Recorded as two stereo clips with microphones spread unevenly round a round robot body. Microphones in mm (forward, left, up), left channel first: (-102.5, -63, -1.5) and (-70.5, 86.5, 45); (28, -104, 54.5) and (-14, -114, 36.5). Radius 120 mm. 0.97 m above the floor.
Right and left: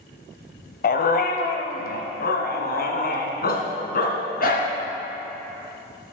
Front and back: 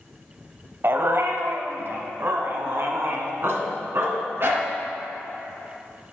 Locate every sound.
0.8 s a dog barking: 125° right, 1.1 m; by 4.7 s 130° right, 3 m